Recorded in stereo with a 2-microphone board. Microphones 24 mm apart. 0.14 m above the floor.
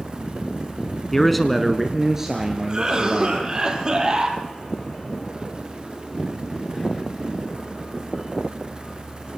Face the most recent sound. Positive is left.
turn(degrees=-35)  # may be behind; listen again after turning